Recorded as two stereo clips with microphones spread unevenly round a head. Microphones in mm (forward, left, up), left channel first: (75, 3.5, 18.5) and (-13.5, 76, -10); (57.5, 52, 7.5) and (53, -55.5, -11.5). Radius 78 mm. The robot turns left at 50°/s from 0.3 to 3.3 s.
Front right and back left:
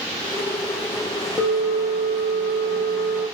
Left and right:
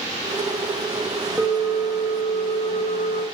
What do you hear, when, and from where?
1.4 s a bell: 5° left, 1.2 m; by 3.2 s 90° right, 1.2 m